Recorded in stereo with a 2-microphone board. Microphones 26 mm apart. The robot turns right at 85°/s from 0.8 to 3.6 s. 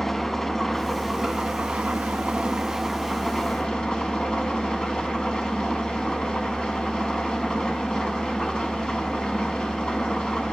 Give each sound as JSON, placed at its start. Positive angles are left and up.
{"t": 0.0, "sound": "an engine running", "azimuth_deg": 165, "distance_m": 0.7}